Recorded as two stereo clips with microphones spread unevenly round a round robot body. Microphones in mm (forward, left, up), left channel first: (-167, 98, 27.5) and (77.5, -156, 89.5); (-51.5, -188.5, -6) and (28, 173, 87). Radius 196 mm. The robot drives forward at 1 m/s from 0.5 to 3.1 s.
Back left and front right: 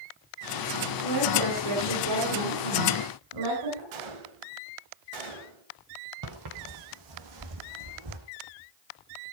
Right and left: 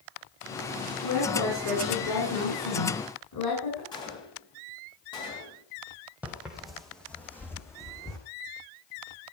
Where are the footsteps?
5° right, 2.5 m; by 8.2 s 20° right, 3.5 m.